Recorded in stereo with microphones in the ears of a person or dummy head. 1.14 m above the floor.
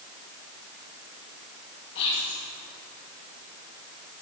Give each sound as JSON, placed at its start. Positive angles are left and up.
{"t": 1.9, "sound": "whispering", "side_deg": 55, "distance_m": 2.5}